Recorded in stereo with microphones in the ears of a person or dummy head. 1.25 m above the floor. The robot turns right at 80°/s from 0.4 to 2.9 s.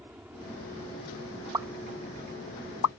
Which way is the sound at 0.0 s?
10° right (ahead or behind).